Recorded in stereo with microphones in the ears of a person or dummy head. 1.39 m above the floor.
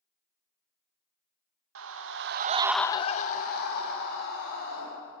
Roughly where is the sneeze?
No sneeze in this recording.